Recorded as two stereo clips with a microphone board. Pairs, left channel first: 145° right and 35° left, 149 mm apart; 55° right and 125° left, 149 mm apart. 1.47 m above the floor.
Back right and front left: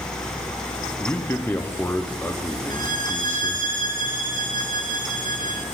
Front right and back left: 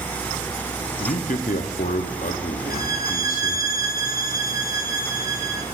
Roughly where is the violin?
Ahead left.